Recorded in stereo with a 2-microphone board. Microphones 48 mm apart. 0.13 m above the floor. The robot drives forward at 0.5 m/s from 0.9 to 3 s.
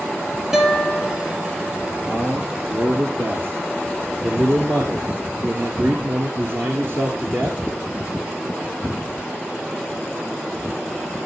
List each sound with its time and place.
0.5 s a guitar: 10° right (ahead or behind), 4 m
2.0 s a man speaking: 55° right (ahead or behind), 2 m